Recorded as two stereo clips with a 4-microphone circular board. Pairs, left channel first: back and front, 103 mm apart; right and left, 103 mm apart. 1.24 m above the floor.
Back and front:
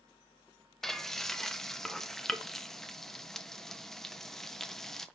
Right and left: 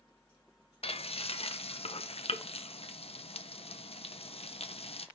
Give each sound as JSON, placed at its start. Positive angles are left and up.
{"t": 0.8, "sound": "frying", "azimuth_deg": -95, "distance_m": 0.7}